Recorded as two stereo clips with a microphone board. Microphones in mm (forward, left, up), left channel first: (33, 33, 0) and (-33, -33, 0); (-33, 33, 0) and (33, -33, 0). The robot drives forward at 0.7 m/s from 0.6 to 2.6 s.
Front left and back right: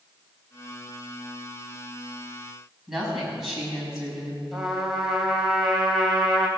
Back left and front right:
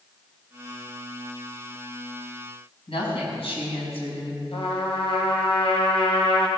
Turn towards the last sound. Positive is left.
turn(degrees=140)